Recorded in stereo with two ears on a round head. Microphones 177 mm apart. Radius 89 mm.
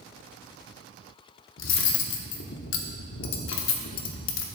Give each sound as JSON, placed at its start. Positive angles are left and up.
{"t": 1.6, "sound": "cutlery clinking", "side_deg": 70, "distance_m": 0.8}